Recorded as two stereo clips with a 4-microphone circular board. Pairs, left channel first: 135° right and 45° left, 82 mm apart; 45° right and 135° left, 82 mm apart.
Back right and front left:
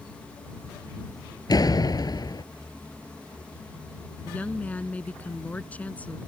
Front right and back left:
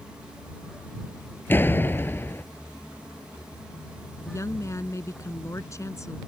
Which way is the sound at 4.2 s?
70° right.